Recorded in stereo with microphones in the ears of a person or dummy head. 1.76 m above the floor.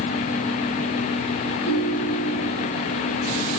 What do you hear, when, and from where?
1.6 s a ringtone: 60° left (ahead or behind), 5.5 m